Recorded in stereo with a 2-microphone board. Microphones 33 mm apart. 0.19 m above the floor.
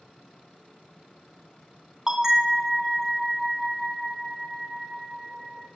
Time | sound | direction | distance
2.1 | a bell | 15° right (ahead or behind) | 0.5 m